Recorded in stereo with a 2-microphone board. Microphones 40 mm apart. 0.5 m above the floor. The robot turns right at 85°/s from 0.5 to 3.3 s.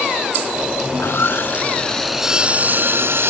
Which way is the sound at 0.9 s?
80° left.